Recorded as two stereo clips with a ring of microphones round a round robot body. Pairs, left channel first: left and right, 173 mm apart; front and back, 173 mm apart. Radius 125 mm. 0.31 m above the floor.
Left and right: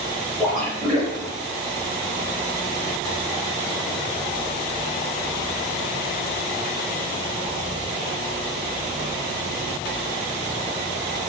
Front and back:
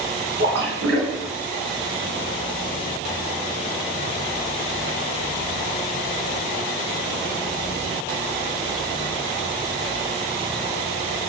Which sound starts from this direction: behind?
A splash, at 0.4 s.